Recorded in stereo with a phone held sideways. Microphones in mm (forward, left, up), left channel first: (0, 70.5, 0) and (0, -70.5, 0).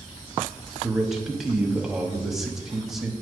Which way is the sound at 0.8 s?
5° right (ahead or behind).